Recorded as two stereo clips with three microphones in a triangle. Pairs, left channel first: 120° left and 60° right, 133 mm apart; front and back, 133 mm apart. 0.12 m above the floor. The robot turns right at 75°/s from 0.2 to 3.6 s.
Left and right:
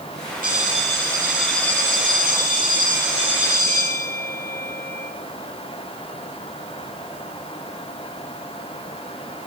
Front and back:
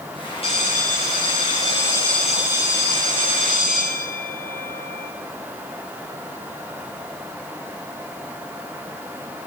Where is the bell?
50° right, 4.5 m; by 5.1 s 170° right, 4.5 m.